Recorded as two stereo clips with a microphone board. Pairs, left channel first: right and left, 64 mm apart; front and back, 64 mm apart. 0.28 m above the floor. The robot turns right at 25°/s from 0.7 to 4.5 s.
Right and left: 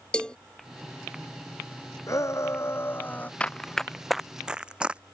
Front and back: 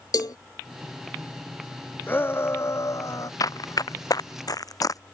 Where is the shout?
55° right; by 3.3 s 25° right.